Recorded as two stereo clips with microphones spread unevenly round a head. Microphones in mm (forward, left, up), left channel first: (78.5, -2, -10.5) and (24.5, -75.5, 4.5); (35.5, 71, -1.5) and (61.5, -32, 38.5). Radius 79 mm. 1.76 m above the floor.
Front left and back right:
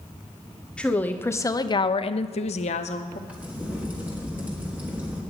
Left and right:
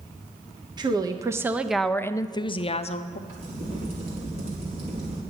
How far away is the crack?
About 4 m.